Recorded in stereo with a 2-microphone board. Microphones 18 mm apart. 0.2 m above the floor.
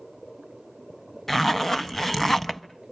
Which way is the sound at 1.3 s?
15° left (ahead or behind).